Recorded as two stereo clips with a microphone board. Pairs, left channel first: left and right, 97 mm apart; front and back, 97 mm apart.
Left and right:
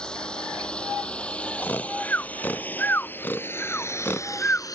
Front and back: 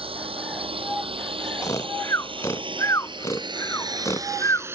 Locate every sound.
0.0 s a drone: 170° left; by 4.8 s 120° left
1.6 s snoring: 30° left